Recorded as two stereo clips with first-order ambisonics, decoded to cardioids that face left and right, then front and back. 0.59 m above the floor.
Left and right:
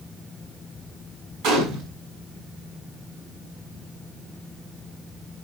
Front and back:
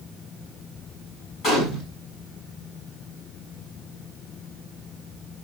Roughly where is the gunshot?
Ahead right.